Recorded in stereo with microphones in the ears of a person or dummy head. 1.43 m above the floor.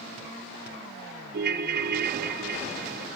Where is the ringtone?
55° right (ahead or behind), 1.3 m.